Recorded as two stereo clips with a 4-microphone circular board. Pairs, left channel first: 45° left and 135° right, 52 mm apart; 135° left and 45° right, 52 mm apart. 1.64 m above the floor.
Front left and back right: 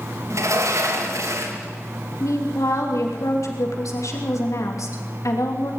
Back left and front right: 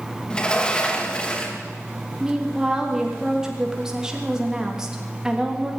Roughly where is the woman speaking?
Ahead left.